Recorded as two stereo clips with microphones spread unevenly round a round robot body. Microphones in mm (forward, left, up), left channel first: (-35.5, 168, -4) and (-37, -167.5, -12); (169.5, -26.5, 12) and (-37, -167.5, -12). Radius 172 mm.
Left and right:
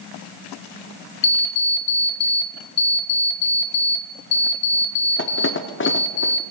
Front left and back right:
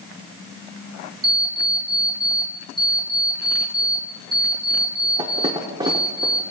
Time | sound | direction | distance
1.2 | an alarm clock | 145° left | 0.5 m